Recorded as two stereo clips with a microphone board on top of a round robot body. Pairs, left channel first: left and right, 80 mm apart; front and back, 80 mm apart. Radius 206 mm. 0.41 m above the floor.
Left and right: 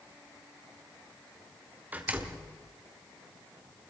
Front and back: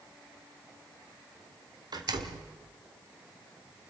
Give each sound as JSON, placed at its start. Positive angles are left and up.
{"t": 1.9, "sound": "a door slam", "azimuth_deg": -160, "distance_m": 1.8}